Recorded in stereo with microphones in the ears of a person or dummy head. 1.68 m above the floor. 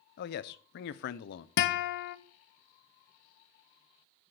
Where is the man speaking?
60° left (ahead or behind), 0.7 m.